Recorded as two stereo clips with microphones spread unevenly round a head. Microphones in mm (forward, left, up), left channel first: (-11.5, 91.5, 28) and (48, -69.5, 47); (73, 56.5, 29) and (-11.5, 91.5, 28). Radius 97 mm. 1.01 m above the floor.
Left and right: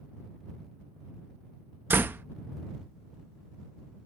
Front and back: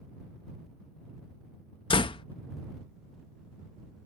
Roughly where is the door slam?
Ahead.